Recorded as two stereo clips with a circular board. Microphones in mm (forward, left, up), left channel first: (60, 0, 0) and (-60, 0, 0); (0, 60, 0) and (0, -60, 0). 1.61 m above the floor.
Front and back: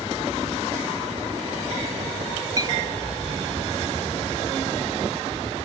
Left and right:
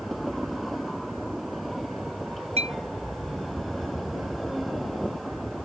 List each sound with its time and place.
2.6 s a clink: 125° right